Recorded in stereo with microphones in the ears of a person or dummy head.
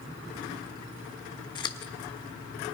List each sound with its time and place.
1.6 s scissors: 25° left (ahead or behind), 1.2 m